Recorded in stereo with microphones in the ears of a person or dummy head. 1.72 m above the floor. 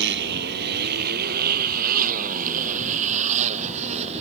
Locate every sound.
0.0 s a motorcycle: 65° right (ahead or behind); by 4.2 s 40° right (ahead or behind)